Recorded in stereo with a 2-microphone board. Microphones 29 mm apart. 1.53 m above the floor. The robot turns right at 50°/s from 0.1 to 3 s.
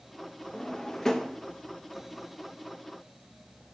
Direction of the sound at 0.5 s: 20° left (ahead or behind).